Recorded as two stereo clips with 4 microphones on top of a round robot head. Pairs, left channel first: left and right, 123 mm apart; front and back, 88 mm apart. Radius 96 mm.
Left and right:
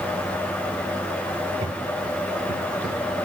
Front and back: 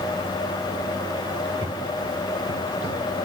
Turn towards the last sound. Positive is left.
turn(degrees=180)